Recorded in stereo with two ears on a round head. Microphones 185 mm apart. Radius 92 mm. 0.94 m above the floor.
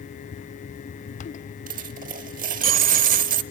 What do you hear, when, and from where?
1.7 s a dropped coin: 40° right (ahead or behind), 0.8 m